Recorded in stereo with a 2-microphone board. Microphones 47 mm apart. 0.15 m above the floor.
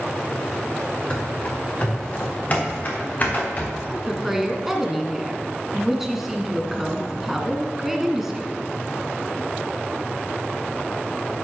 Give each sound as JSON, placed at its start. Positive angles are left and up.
{"t": 1.1, "sound": "running footsteps", "side_deg": 25, "distance_m": 3.0}
{"t": 3.9, "sound": "a woman speaking", "side_deg": -10, "distance_m": 1.6}